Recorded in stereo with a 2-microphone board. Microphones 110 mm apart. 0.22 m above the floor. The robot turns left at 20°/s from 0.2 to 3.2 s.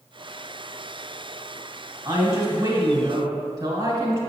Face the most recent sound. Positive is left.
turn(degrees=-35)  # may be behind; listen again after turning